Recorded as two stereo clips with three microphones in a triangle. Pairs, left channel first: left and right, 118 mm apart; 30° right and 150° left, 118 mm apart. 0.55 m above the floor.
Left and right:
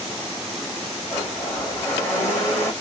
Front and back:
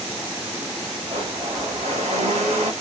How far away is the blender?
About 1.9 m.